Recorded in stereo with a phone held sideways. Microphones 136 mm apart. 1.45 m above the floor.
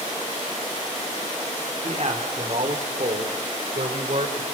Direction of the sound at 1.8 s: 45° right (ahead or behind).